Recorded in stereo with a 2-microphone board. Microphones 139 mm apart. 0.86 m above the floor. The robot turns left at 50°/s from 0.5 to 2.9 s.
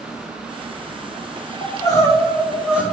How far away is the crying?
About 1.9 m.